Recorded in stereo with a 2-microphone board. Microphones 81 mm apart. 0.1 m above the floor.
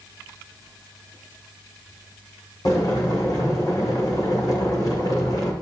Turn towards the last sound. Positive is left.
turn(degrees=55)  # may be behind; listen again after turning